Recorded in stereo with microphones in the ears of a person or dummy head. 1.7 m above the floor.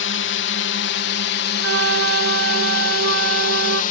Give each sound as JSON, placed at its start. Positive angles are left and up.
{"t": 0.0, "sound": "a drone", "side_deg": 60}
{"t": 1.6, "sound": "a flute", "side_deg": -75}